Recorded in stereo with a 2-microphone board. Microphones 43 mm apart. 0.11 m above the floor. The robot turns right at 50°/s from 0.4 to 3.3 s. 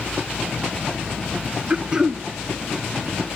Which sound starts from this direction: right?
Throat clearing, at 1.7 s.